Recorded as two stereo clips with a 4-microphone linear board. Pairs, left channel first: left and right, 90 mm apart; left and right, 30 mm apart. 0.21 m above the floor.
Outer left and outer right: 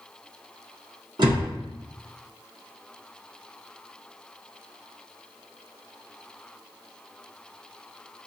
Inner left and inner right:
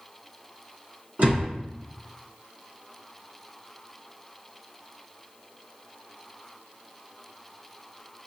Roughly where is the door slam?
Right.